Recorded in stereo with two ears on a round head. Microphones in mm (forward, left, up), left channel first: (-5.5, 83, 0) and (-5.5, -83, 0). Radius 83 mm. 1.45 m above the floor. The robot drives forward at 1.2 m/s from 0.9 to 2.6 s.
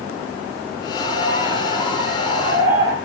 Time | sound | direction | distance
1.0 | a bird | 25° right (ahead or behind) | 7 m